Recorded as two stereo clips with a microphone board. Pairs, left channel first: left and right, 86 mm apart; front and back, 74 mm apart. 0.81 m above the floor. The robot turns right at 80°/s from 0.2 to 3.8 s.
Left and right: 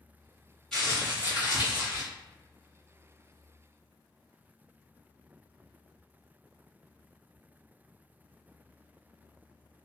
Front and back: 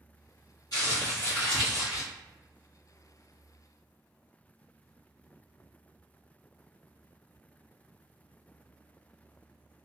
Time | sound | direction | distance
0.7 | crumpling | 5° left | 1.5 m